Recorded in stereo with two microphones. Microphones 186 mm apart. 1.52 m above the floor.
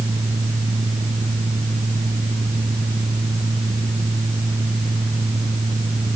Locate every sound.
Only background noise.